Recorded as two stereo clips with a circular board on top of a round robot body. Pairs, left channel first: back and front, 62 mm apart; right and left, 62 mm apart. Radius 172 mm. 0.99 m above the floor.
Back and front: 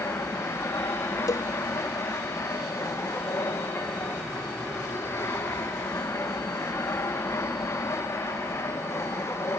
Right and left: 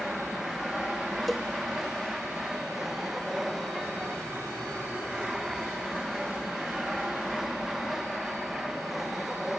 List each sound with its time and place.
0.0 s an aircraft: 175° left
1.3 s a cowbell: 175° right